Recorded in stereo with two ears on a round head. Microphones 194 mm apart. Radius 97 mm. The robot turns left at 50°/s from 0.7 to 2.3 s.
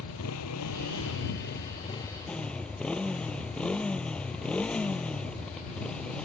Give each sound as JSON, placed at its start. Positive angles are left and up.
{"t": 0.0, "sound": "a motorcycle", "azimuth_deg": 85}